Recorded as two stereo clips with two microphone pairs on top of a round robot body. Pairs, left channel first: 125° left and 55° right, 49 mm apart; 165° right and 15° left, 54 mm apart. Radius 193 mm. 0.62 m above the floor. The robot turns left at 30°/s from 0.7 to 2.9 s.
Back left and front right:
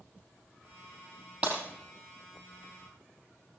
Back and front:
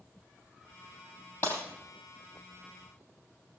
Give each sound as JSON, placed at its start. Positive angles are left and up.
{"t": 1.4, "sound": "breaking glass", "azimuth_deg": -125, "distance_m": 3.5}